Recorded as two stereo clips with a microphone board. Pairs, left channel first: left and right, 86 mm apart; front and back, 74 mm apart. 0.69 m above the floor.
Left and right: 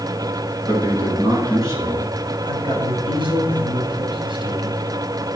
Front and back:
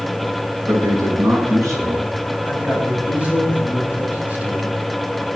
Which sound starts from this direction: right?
A man speaking, at 2.4 s.